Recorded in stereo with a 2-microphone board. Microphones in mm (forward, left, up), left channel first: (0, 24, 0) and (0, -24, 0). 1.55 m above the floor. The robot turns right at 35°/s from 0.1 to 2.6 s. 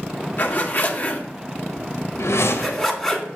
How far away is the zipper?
About 1.2 m.